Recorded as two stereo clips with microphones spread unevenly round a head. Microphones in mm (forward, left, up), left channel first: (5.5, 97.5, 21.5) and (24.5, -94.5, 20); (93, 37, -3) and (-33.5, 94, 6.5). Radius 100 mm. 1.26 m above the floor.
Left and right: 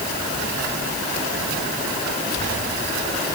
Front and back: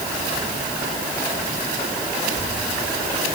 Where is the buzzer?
I don't hear a buzzer.